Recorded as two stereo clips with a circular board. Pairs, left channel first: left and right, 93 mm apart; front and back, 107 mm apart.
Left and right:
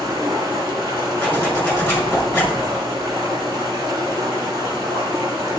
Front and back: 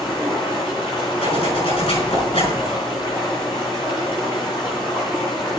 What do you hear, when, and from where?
0.0 s running water: 40° right, 7 m
1.2 s a zipper: 20° left, 5 m